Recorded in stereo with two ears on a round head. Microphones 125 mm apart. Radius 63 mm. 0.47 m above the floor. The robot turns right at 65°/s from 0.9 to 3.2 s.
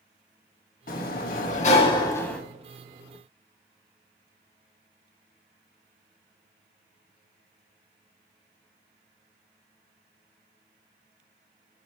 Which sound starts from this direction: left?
A sliding door, at 0.9 s.